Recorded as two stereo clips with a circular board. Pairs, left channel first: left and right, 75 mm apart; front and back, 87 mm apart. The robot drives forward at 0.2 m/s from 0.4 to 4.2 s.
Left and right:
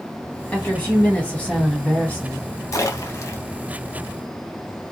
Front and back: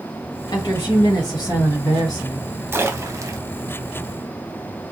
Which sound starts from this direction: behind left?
A splash, at 2.7 s.